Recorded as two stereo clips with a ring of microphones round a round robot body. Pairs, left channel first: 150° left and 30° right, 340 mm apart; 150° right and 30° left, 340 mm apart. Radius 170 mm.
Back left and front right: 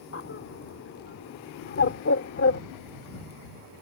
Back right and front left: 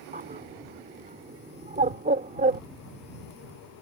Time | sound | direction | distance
0.1 | a bird | 95° left | ?